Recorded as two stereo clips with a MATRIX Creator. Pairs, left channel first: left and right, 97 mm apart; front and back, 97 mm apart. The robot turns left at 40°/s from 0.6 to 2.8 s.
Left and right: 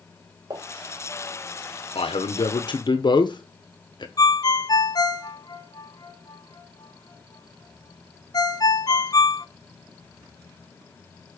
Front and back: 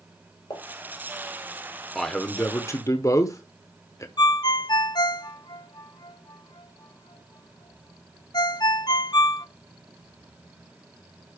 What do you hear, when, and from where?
0.5 s a pop: 40° right, 5 m; by 0.6 s 45° right, 5 m
1.9 s a man speaking: 90° left, 1.1 m; by 4.1 s 55° left, 1.1 m
4.2 s a ringtone: 45° left, 0.9 m